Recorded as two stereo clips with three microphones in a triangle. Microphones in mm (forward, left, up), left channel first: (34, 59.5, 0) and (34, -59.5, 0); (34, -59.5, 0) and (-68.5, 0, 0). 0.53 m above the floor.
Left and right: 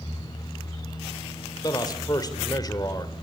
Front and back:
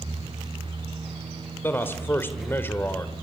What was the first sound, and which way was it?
A man speaking, 40° left.